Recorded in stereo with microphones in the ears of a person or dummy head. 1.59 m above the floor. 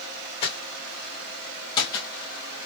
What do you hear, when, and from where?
0.4 s footsteps: 30° left (ahead or behind), 3.5 m; by 2.7 s 20° left (ahead or behind), 2 m